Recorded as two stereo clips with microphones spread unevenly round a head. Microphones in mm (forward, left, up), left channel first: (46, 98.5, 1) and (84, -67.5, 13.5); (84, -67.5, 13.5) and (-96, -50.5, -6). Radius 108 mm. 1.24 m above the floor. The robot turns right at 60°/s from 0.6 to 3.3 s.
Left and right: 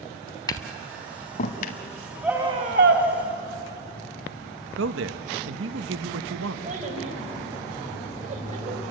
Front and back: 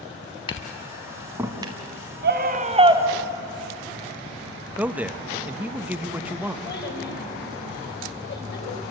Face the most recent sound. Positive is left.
turn(degrees=-30)